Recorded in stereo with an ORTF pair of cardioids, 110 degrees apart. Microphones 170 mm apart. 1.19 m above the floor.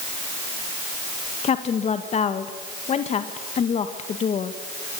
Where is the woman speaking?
45° left, 1.6 m.